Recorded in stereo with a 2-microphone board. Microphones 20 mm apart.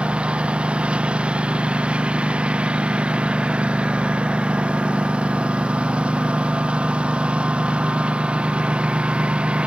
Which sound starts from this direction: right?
A lawn mower, at 0.0 s.